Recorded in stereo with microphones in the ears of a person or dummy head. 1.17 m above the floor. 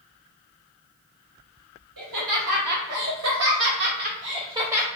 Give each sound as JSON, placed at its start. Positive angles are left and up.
{"t": 2.0, "sound": "laughter", "side_deg": -70, "distance_m": 1.9}